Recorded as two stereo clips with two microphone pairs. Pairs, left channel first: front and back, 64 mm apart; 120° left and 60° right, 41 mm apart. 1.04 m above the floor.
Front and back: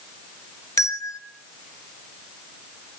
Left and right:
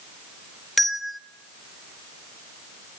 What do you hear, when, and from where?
0.8 s a bell: 35° left, 1.2 m